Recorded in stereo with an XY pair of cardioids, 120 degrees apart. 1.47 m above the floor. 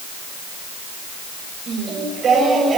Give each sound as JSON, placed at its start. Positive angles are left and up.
{"t": 1.7, "sound": "singing", "azimuth_deg": -45, "distance_m": 8.0}